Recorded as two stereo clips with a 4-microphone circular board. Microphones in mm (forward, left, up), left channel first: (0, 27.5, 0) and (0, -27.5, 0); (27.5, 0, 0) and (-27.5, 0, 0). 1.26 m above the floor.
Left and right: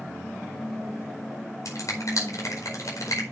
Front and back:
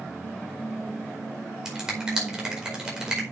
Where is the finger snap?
105° left, 4.5 m.